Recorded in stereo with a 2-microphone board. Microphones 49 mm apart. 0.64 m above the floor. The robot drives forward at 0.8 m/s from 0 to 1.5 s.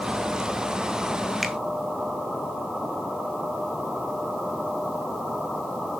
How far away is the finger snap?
About 1.7 m.